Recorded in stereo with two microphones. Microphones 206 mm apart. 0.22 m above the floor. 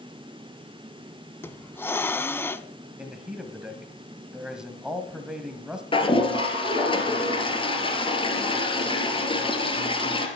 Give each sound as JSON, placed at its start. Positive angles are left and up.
{"t": 1.4, "sound": "a hiss", "side_deg": 10, "distance_m": 0.5}
{"t": 3.0, "sound": "a man speaking", "side_deg": -5, "distance_m": 1.5}
{"t": 5.9, "sound": "a toilet flushing", "side_deg": 25, "distance_m": 2.5}